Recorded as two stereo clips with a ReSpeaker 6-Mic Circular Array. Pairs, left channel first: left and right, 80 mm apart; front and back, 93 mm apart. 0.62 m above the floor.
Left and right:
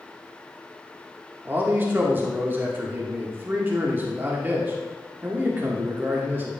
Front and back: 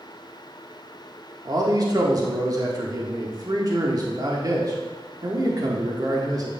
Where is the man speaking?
150° right, 1.3 m.